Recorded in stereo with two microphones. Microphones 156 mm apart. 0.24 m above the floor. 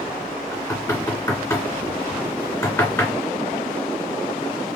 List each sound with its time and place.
0.5 s knocking: 20° left (ahead or behind), 2.5 m